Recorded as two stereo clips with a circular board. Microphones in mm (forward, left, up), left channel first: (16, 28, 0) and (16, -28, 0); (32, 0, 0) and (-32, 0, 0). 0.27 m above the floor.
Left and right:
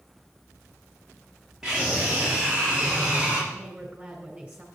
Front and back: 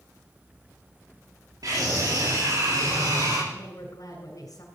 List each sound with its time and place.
1.6 s a scream: 175° right, 7 m; by 3.4 s 165° right, 6 m
3.5 s a woman speaking: 15° right, 2.5 m